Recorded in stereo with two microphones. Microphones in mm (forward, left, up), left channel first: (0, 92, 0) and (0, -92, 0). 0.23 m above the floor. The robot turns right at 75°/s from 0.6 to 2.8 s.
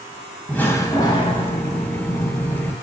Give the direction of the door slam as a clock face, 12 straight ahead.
11 o'clock.